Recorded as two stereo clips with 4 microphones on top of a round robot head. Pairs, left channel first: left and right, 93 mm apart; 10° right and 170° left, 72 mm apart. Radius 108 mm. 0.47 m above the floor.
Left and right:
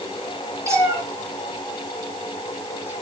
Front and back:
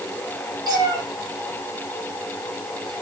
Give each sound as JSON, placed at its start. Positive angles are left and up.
{"t": 0.7, "sound": "a cat meowing", "azimuth_deg": -150, "distance_m": 3.5}